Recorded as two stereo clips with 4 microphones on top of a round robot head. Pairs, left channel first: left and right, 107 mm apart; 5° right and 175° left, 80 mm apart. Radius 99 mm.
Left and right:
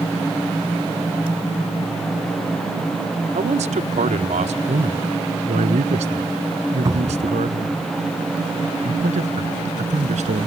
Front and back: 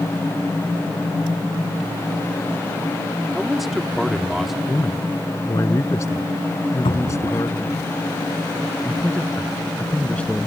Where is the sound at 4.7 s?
65° right.